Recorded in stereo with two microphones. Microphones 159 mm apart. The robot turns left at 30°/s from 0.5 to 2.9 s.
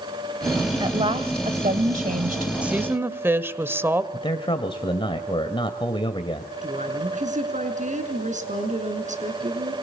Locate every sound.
0.8 s a woman speaking: 35° right, 2 m; by 2.5 s 90° right, 2 m
2.6 s a woman speaking: 5° right (ahead or behind), 1.6 m; by 4.0 s 15° right (ahead or behind), 1.6 m
4.1 s a man speaking: 35° left (ahead or behind), 1.9 m
6.6 s a woman speaking: 50° right (ahead or behind), 6 m